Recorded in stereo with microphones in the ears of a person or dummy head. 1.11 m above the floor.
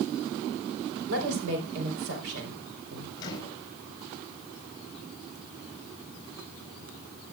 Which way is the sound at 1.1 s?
70° right (ahead or behind).